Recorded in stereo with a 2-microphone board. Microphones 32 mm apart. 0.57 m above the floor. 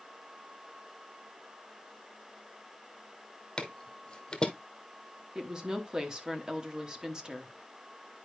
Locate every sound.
3.6 s footsteps: 30° left (ahead or behind), 1.1 m
5.3 s a woman speaking: 25° right (ahead or behind), 1.0 m